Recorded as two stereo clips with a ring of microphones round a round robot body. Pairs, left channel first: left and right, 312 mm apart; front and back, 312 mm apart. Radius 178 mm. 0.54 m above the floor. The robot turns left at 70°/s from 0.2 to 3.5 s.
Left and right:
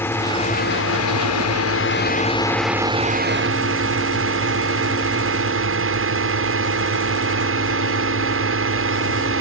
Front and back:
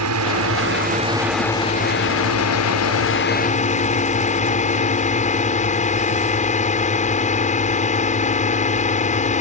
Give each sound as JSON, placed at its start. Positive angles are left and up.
{"t": 0.0, "sound": "a drone", "azimuth_deg": 170}